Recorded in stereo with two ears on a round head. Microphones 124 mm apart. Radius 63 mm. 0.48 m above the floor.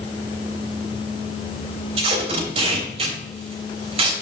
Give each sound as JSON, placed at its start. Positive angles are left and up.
{"t": 2.0, "sound": "tape being pulled", "side_deg": -45, "distance_m": 3.0}